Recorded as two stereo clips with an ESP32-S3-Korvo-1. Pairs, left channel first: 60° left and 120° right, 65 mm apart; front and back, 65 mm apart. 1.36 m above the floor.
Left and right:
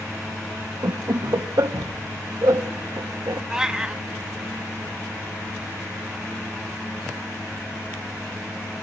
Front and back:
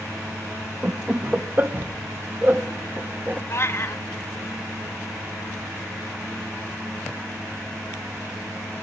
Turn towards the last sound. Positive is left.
turn(degrees=-40)